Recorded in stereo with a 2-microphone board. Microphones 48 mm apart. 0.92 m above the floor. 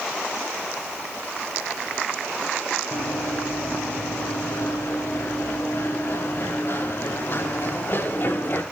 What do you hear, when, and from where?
2.9 s running footsteps: 80° left, 7.5 m; by 8.6 s 45° left (ahead or behind), 9 m